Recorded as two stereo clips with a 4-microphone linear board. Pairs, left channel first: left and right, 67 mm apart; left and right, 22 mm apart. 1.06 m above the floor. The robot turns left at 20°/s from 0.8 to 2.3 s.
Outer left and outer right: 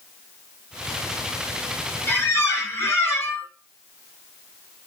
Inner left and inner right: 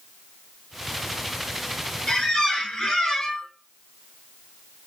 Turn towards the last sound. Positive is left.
turn(degrees=40)  # may be behind; listen again after turning